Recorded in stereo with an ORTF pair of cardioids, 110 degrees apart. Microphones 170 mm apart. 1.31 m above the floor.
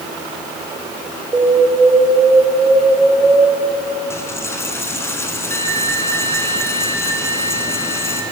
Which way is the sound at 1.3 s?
20° right.